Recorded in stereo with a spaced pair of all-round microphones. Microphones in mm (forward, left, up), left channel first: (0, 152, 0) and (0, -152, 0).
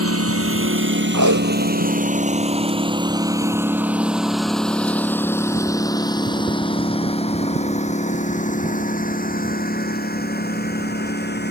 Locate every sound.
0.0 s a lawn mower: 50° right (ahead or behind); by 11.5 s 35° left (ahead or behind)
1.1 s tape being pulled: 75° right (ahead or behind)